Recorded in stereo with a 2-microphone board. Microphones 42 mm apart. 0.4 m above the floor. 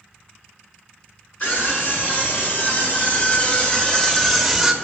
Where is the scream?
40° left (ahead or behind), 5.5 m; by 4.8 s 10° right (ahead or behind), 1.6 m.